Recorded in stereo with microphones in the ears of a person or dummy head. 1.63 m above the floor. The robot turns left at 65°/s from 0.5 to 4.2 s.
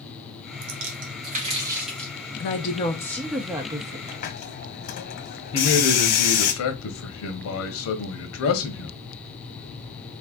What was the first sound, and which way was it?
A splash, 85° right.